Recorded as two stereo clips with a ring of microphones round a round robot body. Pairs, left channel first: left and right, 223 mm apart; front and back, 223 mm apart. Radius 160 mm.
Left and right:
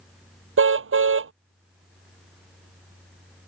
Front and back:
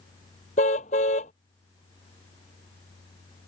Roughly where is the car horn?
Right.